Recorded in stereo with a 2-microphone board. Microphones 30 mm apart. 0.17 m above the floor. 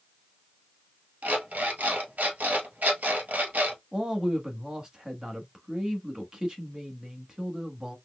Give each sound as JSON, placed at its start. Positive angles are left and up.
{"t": 1.2, "sound": "an alarm clock", "side_deg": -65, "distance_m": 1.5}
{"t": 3.9, "sound": "a man speaking", "side_deg": -25, "distance_m": 1.2}